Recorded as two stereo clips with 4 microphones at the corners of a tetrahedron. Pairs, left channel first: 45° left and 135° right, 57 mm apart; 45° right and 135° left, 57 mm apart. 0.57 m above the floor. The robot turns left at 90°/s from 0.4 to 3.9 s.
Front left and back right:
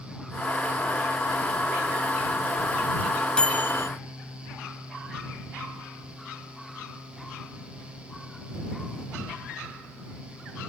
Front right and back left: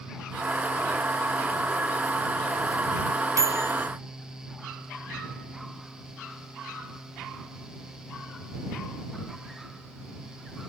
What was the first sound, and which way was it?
A microwave, 120° left.